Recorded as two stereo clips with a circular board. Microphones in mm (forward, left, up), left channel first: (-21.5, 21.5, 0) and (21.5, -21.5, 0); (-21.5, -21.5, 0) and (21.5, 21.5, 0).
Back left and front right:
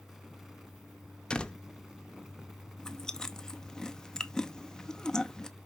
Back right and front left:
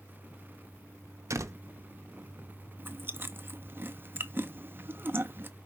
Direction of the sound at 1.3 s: 60° left.